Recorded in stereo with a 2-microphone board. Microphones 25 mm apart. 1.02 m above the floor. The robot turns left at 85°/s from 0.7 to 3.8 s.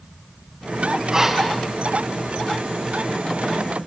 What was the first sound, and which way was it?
Breathing, 155° right.